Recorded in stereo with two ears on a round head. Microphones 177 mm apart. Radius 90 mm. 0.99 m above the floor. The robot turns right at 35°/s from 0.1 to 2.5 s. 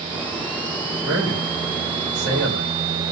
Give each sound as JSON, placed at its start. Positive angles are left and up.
{"t": 1.0, "sound": "a man speaking", "side_deg": -70, "distance_m": 2.5}